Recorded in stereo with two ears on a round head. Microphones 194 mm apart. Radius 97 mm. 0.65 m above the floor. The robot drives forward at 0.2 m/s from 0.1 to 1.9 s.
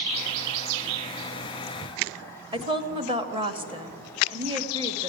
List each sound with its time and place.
2.5 s a woman speaking: 25° right (ahead or behind), 0.9 m